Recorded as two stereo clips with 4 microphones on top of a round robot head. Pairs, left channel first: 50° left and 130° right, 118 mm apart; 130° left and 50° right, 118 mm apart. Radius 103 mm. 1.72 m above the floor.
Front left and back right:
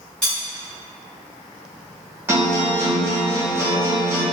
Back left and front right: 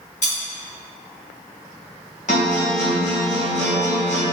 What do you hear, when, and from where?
0.2 s cutlery clinking: 130° left, 0.9 m
2.3 s a guitar: 160° left, 0.6 m